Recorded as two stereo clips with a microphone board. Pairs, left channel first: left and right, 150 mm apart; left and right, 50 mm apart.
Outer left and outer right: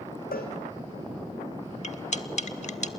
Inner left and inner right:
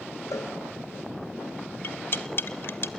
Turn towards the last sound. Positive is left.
turn(degrees=50)  # may be behind; listen again after turning